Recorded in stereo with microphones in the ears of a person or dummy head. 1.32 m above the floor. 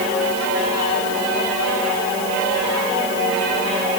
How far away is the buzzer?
No buzzer in this recording.